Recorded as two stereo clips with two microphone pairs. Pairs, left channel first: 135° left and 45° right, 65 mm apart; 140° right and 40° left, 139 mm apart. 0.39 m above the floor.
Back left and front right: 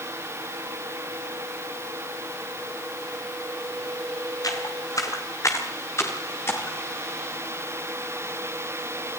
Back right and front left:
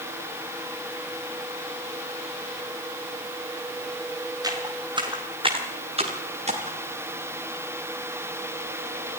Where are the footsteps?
105° left, 5 m; by 6.8 s 80° left, 6 m.